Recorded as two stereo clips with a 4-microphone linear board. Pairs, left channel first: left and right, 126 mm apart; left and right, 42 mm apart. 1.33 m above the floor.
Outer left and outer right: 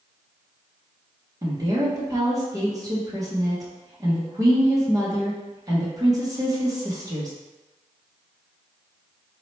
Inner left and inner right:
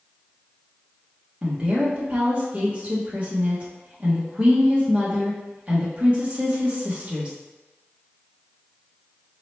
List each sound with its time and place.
1.4 s a woman speaking: 30° right (ahead or behind), 1.3 m